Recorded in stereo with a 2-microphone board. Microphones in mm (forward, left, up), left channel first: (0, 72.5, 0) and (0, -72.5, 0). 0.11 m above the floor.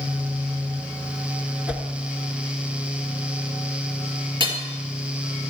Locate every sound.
1.7 s a whoosh: 10° right (ahead or behind), 0.9 m
4.4 s hammering: 35° right (ahead or behind), 1.7 m